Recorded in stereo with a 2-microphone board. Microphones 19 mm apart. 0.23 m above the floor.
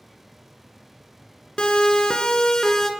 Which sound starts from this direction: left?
A siren, at 1.6 s.